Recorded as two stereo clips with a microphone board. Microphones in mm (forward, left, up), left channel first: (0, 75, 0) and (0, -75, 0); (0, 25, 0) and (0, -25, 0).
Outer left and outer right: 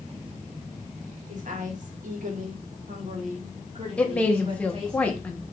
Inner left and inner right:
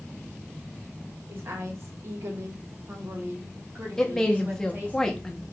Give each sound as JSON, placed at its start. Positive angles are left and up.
{"t": 1.3, "sound": "a woman speaking", "side_deg": -55, "distance_m": 1.7}
{"t": 4.0, "sound": "a woman speaking", "side_deg": 10, "distance_m": 0.9}